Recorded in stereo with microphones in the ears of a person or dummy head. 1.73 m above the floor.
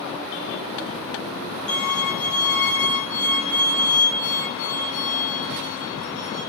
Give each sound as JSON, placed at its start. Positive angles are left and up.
{"t": 1.7, "sound": "a violin", "side_deg": 30, "distance_m": 3.5}